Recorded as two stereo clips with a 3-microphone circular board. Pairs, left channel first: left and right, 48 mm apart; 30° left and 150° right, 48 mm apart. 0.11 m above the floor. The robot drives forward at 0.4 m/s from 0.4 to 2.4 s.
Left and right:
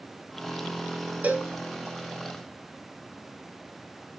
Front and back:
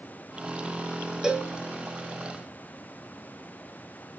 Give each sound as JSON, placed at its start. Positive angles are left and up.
{"t": 1.2, "sound": "a cowbell", "azimuth_deg": -85, "distance_m": 0.7}